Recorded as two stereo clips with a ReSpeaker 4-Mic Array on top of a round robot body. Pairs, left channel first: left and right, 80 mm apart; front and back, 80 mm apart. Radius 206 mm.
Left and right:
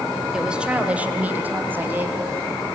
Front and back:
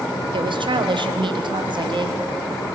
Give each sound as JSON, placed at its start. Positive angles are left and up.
{"t": 0.3, "sound": "a woman speaking", "azimuth_deg": -170, "distance_m": 2.0}